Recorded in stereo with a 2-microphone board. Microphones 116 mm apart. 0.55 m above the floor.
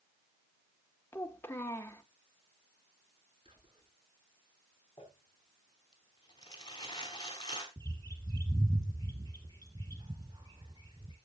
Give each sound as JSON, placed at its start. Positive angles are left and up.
{"t": 1.1, "sound": "a child speaking", "side_deg": 20, "distance_m": 1.2}
{"t": 3.5, "sound": "whispering", "side_deg": -55, "distance_m": 5.5}
{"t": 5.0, "sound": "crumpling", "side_deg": 40, "distance_m": 3.5}
{"t": 7.8, "sound": "a bird", "side_deg": -40, "distance_m": 3.5}